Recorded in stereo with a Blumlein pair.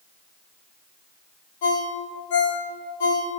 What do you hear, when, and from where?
1.6 s a ringtone: 55° left, 3 m